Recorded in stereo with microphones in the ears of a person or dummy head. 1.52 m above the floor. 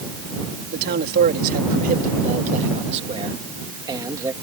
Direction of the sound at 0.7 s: 55° right (ahead or behind).